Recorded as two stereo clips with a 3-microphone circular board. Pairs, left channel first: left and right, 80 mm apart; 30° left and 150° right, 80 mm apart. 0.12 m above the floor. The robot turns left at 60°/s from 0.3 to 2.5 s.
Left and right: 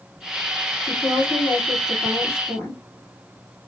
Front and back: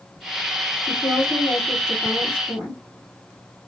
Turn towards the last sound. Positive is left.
turn(degrees=40)